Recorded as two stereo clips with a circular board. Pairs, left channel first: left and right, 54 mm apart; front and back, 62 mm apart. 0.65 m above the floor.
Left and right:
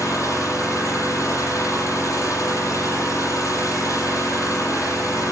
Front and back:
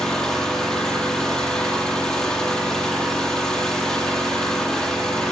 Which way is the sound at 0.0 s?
80° left.